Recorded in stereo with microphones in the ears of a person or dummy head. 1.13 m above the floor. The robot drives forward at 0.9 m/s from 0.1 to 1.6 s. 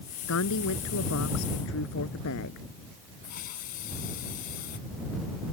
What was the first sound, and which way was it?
A woman speaking, 70° left (ahead or behind).